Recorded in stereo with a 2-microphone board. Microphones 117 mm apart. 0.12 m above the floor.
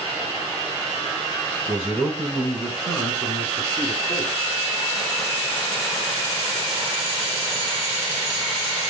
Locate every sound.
1.7 s a man speaking: 10° right (ahead or behind), 1.2 m; by 4.3 s 45° left (ahead or behind), 1.4 m